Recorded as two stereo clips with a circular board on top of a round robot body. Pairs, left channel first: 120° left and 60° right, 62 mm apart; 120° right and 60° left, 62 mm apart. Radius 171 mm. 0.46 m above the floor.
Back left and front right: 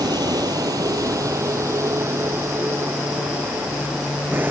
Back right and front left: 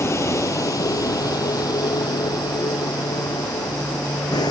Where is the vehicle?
75° right; by 4.5 s 120° right.